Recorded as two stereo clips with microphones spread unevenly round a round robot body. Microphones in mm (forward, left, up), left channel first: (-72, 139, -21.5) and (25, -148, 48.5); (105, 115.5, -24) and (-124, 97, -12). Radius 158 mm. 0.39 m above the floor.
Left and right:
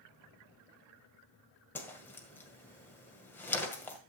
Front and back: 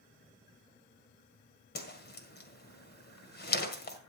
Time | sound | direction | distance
1.8 | a whoosh | 35° left | 1.8 m